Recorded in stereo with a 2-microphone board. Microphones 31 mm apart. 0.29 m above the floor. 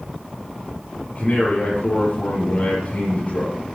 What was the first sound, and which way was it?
A man speaking, 40° left (ahead or behind).